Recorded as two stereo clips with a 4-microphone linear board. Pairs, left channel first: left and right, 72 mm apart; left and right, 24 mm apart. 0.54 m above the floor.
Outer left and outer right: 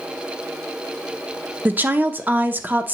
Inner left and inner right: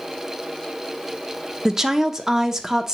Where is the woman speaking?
25° right (ahead or behind), 0.7 m.